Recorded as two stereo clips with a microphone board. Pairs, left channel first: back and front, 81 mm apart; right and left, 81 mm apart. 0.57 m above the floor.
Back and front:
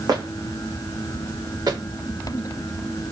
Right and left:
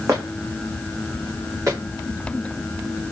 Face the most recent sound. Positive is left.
turn(degrees=40)